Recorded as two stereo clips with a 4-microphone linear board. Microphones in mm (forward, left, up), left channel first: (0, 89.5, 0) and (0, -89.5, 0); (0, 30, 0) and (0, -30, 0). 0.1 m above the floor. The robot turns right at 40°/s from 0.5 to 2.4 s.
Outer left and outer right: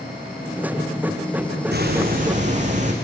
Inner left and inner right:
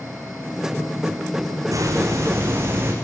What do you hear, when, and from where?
1.7 s a hiss: 70° right (ahead or behind), 6.5 m; by 2.9 s 45° right (ahead or behind), 6.5 m